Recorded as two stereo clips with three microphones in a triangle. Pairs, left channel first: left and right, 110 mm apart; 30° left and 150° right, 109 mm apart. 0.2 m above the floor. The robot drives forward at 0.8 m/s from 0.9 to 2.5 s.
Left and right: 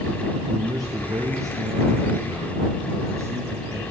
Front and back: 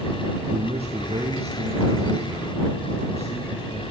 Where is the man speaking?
140° right, 3.5 m; by 3.8 s 150° right, 4.5 m.